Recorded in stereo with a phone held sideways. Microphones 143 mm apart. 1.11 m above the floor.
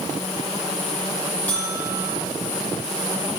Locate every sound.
1.5 s a buzzer: 10° left (ahead or behind), 6.5 m